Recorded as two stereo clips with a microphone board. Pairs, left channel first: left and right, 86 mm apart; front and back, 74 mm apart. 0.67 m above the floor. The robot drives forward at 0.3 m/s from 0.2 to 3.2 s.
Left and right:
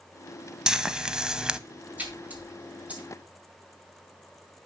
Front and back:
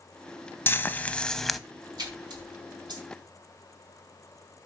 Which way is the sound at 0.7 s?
15° right.